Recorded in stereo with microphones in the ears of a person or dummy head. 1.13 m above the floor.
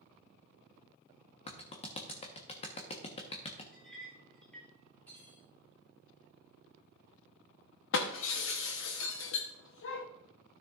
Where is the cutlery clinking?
10° left (ahead or behind), 2.5 m.